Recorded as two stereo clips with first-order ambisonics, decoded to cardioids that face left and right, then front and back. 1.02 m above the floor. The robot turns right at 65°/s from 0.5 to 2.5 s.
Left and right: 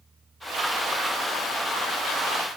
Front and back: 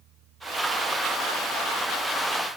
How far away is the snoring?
No snoring in this recording.